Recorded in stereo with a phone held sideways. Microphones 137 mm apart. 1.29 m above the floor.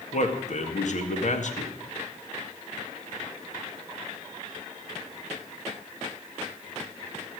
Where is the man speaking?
65° left (ahead or behind), 2.0 m.